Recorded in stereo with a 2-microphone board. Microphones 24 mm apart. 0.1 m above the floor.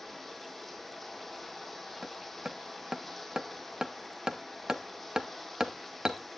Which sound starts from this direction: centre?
Running water, at 0.0 s.